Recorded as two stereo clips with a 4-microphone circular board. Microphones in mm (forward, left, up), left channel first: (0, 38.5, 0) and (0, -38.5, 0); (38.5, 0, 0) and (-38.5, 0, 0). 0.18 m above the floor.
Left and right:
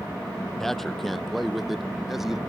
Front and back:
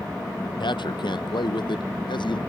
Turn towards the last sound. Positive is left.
turn(degrees=-5)